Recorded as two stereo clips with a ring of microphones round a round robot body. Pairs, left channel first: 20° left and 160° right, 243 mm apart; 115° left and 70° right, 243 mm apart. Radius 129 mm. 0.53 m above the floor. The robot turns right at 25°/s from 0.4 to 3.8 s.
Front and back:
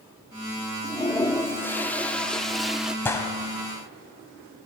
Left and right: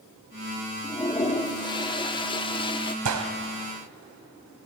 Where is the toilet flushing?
70° left, 0.9 m; by 3.0 s 120° left, 0.9 m.